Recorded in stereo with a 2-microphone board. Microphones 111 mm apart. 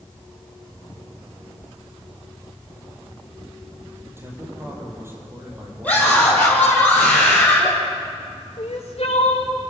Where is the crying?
60° left (ahead or behind), 3 m.